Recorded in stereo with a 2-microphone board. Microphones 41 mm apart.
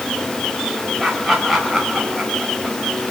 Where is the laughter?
Centre (ahead or behind), 4.5 m; by 2.8 s 5° right (ahead or behind), 5.5 m.